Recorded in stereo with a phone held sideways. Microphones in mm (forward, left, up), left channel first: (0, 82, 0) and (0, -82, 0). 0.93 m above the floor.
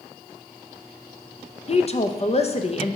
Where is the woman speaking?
40° left (ahead or behind), 0.5 m.